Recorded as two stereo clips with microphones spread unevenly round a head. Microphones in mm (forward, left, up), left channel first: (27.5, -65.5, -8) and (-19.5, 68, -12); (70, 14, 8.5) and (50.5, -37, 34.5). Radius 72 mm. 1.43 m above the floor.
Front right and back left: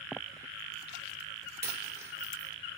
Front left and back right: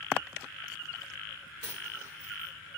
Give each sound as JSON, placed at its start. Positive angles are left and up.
{"t": 1.6, "sound": "a dropped coin", "azimuth_deg": 180, "distance_m": 1.9}